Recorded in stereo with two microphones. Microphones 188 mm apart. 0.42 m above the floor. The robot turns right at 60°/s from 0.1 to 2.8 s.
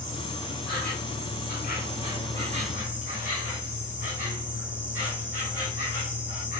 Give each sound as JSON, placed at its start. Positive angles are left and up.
{"t": 0.0, "sound": "an insect", "azimuth_deg": 30, "distance_m": 3.5}